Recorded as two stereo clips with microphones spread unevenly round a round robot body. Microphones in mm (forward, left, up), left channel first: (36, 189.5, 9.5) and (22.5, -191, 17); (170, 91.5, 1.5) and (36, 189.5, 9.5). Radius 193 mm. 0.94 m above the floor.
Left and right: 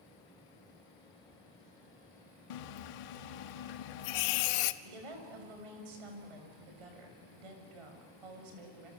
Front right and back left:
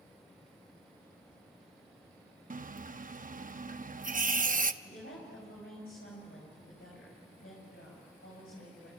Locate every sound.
2.5 s a running tap: 100° left, 0.9 m
4.8 s a woman speaking: 95° right, 6.5 m